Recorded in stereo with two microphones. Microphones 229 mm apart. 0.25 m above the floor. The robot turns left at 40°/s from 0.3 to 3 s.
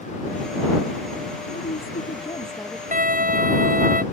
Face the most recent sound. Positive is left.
turn(degrees=-40)  # may be behind; listen again after turning